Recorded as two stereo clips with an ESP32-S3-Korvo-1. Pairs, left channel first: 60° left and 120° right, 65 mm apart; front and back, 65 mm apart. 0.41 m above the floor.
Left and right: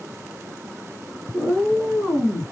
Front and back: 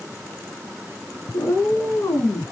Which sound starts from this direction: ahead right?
A cat meowing, at 1.3 s.